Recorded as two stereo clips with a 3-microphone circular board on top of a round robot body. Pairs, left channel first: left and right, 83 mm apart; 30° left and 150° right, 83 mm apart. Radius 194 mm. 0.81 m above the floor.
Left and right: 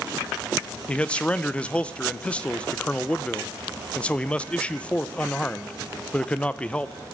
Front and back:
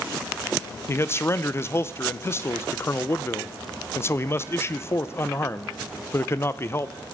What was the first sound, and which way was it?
A man speaking, 30° left.